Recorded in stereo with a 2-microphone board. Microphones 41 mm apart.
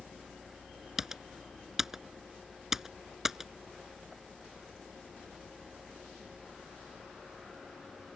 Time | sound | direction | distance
1.0 | typing on a keyboard | 10° right (ahead or behind) | ?